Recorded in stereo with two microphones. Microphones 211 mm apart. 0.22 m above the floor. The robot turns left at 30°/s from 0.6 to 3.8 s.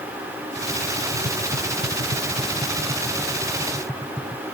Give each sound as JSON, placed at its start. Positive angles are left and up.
{"t": 1.1, "sound": "tapping", "side_deg": -80}